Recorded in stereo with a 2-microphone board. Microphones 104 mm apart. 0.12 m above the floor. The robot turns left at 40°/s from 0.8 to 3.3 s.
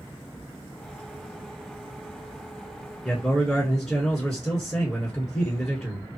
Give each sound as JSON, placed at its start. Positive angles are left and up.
{"t": 3.0, "sound": "a man speaking", "side_deg": 0, "distance_m": 1.2}